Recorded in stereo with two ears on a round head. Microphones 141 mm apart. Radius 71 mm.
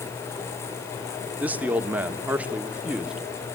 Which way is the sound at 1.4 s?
10° right (ahead or behind).